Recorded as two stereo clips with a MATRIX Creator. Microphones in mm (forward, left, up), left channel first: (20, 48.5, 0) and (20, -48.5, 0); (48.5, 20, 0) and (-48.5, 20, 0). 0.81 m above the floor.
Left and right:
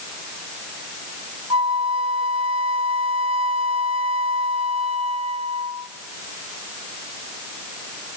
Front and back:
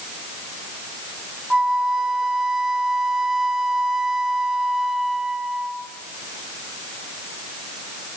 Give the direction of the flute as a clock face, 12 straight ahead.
3 o'clock.